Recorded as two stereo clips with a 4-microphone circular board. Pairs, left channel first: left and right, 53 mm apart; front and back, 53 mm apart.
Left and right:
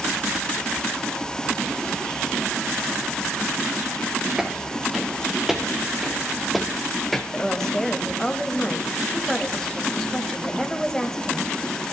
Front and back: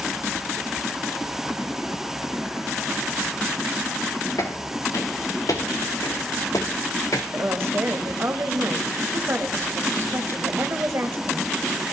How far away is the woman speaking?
About 1.3 m.